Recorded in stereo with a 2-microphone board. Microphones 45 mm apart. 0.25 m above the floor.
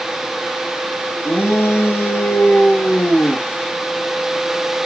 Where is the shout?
70° left (ahead or behind), 5 m; by 3.5 s 60° left (ahead or behind), 3.5 m.